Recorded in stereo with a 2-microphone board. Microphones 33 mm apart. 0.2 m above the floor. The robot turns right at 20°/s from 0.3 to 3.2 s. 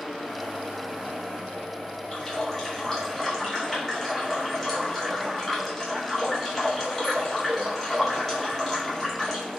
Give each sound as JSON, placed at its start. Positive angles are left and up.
{"t": 2.1, "sound": "a running tap", "side_deg": 20, "distance_m": 1.1}